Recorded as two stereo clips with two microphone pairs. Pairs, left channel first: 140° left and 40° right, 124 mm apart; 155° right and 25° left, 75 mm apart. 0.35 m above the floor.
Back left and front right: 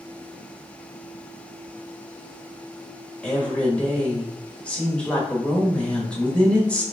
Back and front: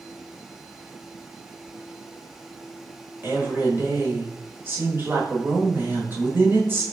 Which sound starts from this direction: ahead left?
A woman speaking, at 3.2 s.